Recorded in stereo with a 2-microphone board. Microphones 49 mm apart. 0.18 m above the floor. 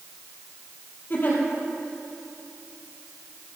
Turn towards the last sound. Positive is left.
turn(degrees=45)  # may be behind; listen again after turning